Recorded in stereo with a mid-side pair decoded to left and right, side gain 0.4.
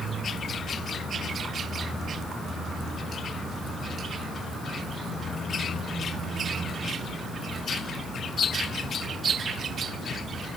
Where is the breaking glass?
I don't hear breaking glass.